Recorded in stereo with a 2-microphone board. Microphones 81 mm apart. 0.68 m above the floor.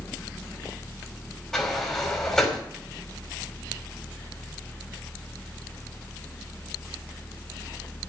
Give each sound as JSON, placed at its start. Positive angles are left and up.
{"t": 1.5, "sound": "a sliding door", "side_deg": 5, "distance_m": 4.5}